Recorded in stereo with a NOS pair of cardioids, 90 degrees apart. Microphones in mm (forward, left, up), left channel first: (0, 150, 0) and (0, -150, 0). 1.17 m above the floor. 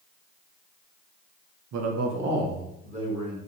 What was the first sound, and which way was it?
A man speaking, 65° right.